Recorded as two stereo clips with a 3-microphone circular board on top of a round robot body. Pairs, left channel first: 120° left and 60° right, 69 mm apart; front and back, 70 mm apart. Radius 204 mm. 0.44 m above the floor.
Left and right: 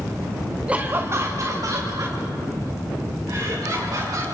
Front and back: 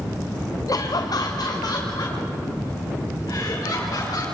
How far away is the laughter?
About 1.1 m.